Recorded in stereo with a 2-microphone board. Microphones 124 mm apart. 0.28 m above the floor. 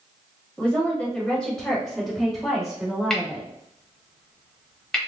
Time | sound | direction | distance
0.6 | a woman speaking | 10° left (ahead or behind) | 1.3 m
3.1 | cutlery clinking | 5° left (ahead or behind) | 0.8 m